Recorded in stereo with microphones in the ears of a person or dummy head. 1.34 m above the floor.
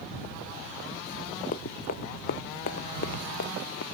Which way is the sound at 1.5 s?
45° left (ahead or behind).